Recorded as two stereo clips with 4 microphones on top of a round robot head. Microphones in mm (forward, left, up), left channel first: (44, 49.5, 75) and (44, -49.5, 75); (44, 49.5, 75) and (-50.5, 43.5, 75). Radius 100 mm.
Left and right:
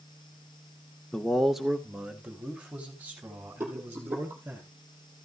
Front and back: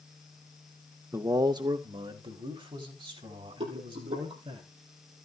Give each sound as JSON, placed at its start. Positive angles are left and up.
{"t": 1.1, "sound": "a man speaking", "azimuth_deg": 165, "distance_m": 1.0}
{"t": 3.6, "sound": "a rattle", "azimuth_deg": -160, "distance_m": 5.5}